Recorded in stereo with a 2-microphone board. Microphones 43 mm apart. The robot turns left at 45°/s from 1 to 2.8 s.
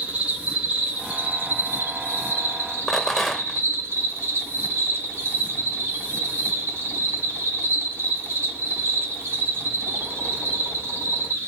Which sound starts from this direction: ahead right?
An insect, at 0.0 s.